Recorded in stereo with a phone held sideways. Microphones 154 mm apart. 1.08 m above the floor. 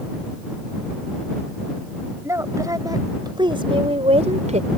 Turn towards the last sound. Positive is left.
turn(degrees=-55)  # may be behind; listen again after turning